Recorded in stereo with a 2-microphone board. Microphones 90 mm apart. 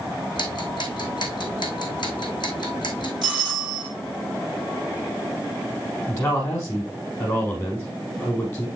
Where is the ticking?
60° left (ahead or behind), 2.5 m.